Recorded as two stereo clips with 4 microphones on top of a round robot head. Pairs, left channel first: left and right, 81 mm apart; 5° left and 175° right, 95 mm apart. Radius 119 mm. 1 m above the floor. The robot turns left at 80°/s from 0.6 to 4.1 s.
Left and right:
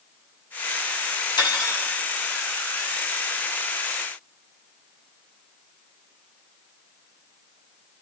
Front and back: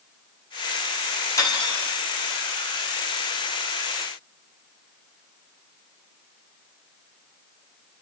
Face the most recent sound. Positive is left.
turn(degrees=-155)